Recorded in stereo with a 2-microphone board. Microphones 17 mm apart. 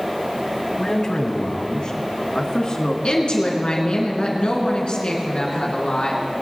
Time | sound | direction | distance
0.8 | a man speaking | 45° left (ahead or behind) | 1.3 m
3.0 | a woman speaking | 65° left (ahead or behind) | 3 m